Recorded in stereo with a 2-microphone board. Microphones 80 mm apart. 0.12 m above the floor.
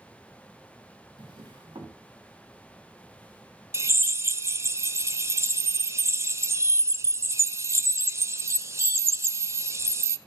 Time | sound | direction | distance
1.2 | a drawer | 80° right | 3.5 m
3.7 | a drill | 35° right (ahead or behind) | 0.6 m